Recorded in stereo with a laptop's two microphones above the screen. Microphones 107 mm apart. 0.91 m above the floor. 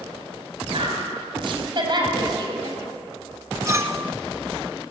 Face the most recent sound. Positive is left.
turn(degrees=-25)  # may be behind; listen again after turning